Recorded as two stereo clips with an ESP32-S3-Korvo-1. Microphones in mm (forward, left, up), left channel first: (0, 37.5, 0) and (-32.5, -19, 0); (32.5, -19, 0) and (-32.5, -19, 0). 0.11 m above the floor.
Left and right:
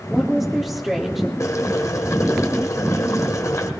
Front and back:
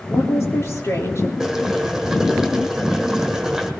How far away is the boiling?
About 1.5 m.